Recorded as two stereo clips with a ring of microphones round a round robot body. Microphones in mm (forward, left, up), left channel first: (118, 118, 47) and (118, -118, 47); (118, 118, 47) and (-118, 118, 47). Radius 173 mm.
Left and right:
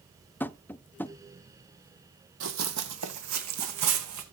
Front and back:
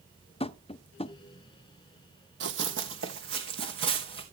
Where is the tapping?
20° left, 0.5 m.